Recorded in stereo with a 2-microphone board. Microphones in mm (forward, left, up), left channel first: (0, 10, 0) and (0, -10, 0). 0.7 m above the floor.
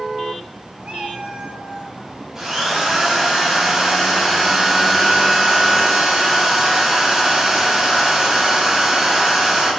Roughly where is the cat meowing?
Right.